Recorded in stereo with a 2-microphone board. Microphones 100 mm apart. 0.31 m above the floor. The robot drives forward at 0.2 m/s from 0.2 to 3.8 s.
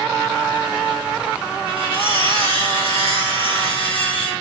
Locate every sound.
1.7 s cutlery clinking: 65° left (ahead or behind), 1.8 m